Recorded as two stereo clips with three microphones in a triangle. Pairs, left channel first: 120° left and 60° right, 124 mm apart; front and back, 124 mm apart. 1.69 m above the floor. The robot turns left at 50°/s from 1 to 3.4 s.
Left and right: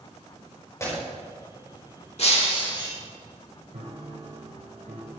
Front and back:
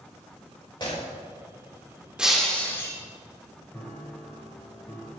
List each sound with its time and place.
0.8 s breaking glass: 55° left, 5 m
2.2 s breaking glass: 100° left, 2.5 m; by 3.0 s 60° left, 2.5 m
3.7 s a piano: 70° right, 3 m